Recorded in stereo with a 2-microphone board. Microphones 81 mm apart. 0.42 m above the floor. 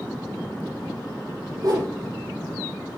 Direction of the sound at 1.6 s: 60° right (ahead or behind).